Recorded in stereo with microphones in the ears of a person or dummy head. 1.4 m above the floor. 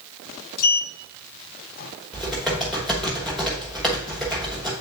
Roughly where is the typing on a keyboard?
Centre.